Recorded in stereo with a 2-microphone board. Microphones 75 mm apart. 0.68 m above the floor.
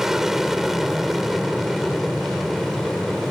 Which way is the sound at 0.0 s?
5° right (ahead or behind).